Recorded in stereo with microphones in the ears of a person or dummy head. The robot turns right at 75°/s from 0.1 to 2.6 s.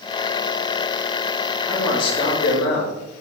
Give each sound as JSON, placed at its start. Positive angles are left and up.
{"t": 1.7, "sound": "a man speaking", "azimuth_deg": 0, "distance_m": 4.0}